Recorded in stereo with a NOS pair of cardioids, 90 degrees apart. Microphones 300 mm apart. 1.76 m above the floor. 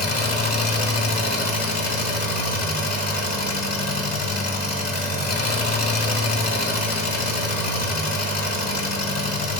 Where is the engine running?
30° left, 2.5 m.